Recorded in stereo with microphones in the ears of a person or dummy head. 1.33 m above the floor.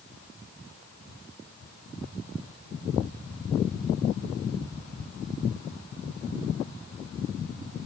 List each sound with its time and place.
Only background noise.